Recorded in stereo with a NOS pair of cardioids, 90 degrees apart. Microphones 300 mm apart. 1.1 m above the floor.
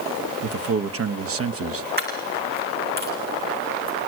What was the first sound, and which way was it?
A man speaking, 45° right.